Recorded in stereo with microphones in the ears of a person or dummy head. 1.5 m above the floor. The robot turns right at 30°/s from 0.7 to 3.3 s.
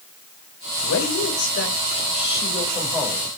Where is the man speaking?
105° left, 6 m; by 3.4 s straight behind, 6 m.